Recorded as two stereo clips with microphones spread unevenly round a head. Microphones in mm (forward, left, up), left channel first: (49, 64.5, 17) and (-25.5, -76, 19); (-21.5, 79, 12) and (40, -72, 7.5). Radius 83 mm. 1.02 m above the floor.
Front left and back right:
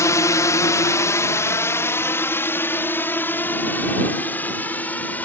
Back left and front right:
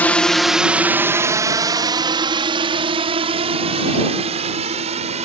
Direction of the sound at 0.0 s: 50° left.